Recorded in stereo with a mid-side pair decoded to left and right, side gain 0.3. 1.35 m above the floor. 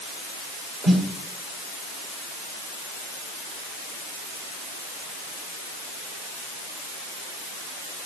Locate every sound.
0.8 s a snare drum: 55° right, 6 m